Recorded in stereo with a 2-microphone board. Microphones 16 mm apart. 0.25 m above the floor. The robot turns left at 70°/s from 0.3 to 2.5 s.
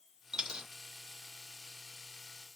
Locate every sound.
0.3 s a dropped coin: 65° right (ahead or behind), 0.6 m; by 0.7 s 70° right (ahead or behind), 0.6 m